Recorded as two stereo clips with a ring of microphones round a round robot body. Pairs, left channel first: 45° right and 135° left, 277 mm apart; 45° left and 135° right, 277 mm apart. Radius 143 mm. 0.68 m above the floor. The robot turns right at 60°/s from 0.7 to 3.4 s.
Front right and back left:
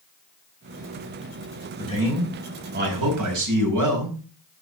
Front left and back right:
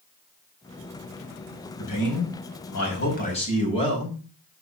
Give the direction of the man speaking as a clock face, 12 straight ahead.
11 o'clock.